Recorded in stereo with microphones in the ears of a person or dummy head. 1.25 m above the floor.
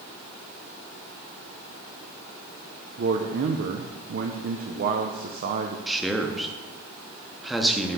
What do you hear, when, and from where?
3.0 s a man speaking: 45° right (ahead or behind), 0.5 m
5.9 s a man speaking: centre (ahead or behind), 0.5 m